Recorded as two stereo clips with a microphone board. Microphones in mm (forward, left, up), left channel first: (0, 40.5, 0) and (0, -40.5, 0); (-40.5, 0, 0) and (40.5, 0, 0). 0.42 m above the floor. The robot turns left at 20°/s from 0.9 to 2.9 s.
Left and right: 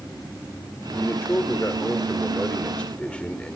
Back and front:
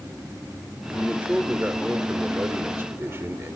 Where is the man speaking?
65° left, 1.6 m; by 3.6 s 25° left, 1.6 m.